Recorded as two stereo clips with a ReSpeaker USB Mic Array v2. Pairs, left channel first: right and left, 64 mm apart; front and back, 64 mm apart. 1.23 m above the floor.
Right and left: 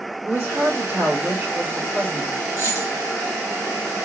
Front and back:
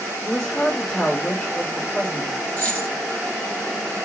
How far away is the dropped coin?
About 1.9 m.